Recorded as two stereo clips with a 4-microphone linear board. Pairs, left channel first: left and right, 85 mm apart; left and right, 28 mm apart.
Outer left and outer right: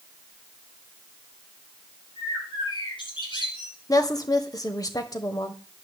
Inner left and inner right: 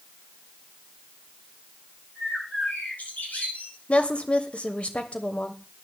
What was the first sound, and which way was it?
A bird, 70° left (ahead or behind).